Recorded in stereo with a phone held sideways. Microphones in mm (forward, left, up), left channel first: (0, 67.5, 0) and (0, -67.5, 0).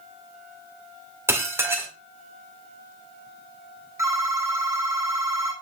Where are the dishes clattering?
15° right (ahead or behind), 2 m.